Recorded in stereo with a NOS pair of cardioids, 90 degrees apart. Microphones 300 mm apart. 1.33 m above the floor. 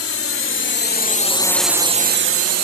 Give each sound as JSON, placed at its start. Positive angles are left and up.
{"t": 0.0, "sound": "a drone", "azimuth_deg": 50}